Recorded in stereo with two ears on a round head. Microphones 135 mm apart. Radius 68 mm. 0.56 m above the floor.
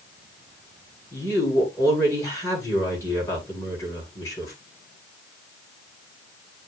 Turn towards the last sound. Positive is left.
turn(degrees=20)  # may be behind; listen again after turning